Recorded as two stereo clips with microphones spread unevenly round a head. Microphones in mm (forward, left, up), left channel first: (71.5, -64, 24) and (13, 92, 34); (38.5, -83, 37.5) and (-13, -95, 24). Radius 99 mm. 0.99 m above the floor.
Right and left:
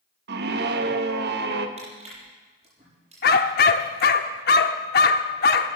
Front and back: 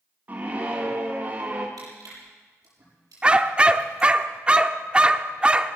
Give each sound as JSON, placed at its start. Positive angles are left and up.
{"t": 0.3, "sound": "a scream", "azimuth_deg": 130, "distance_m": 1.6}
{"t": 1.8, "sound": "crushing", "azimuth_deg": 170, "distance_m": 7.0}
{"t": 3.2, "sound": "a dog barking", "azimuth_deg": -90, "distance_m": 0.7}